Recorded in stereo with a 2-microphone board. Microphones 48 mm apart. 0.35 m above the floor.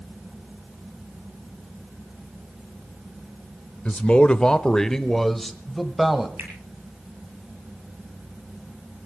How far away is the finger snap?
About 8 m.